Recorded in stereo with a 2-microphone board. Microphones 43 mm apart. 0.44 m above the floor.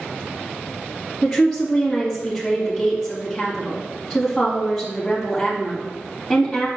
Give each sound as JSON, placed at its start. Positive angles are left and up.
{"t": 1.2, "sound": "a woman speaking", "side_deg": 15, "distance_m": 3.0}